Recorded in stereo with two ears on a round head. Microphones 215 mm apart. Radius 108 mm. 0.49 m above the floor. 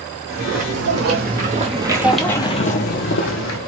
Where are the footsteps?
55° right (ahead or behind), 1.3 m; by 3.6 s 60° left (ahead or behind), 0.9 m.